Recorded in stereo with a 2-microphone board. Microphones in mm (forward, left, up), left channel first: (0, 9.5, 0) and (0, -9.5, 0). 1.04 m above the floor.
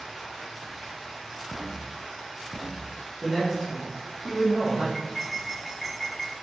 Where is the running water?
Centre (ahead or behind), 1.8 m.